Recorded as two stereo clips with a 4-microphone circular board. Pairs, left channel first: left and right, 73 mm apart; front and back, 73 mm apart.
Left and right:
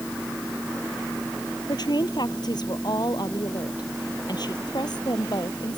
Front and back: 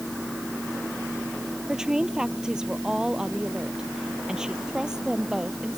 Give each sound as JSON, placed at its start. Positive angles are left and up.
{"t": 1.7, "sound": "a woman speaking", "azimuth_deg": 100}